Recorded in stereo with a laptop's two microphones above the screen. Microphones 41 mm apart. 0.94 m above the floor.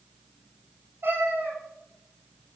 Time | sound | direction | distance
1.0 | a cat meowing | 75° right (ahead or behind) | 5.5 m